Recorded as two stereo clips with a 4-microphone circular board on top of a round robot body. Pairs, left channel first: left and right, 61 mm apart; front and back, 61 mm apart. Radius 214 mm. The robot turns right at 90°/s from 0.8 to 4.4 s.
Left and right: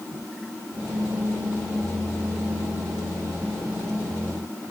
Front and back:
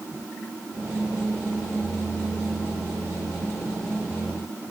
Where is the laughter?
I don't hear laughter.